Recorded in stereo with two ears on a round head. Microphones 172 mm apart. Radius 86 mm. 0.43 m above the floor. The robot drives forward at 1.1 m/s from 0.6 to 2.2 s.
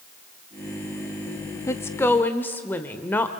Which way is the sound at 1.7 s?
15° left (ahead or behind).